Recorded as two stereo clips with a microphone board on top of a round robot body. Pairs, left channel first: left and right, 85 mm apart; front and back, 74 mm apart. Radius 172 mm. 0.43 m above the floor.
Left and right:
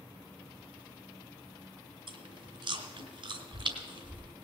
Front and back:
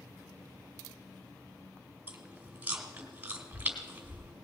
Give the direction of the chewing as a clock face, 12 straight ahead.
4 o'clock.